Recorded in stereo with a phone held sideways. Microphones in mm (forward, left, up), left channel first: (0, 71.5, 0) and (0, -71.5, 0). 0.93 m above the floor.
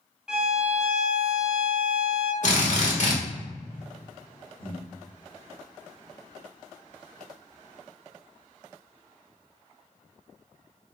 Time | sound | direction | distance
0.3 | a violin | 5° right (ahead or behind) | 0.6 m
2.4 | a drill | 60° left (ahead or behind) | 0.9 m
4.6 | breathing | 90° left | 1.4 m